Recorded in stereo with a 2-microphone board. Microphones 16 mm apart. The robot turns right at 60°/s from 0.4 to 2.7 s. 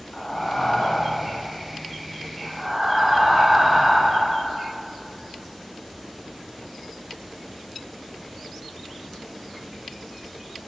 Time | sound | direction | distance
0.1 | breathing | 45° left | 3 m